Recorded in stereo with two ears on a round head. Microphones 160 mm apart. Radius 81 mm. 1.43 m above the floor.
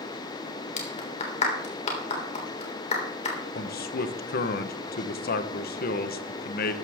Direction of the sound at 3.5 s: 55° left (ahead or behind).